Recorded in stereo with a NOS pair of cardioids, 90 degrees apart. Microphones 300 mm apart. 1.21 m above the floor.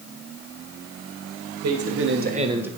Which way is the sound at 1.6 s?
60° right.